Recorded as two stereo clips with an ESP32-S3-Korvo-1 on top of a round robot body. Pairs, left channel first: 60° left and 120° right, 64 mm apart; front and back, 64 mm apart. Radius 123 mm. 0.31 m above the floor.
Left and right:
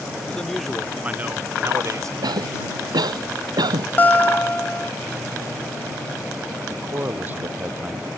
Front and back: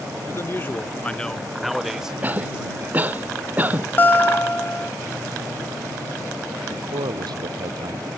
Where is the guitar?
25° left.